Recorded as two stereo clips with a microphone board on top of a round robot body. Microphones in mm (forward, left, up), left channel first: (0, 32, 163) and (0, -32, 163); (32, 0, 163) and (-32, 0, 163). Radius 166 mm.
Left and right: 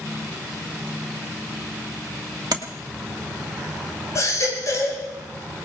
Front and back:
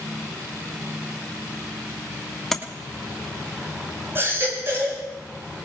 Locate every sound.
2.5 s tapping: 85° right, 1.6 m
4.2 s a baby crying: 125° left, 9.5 m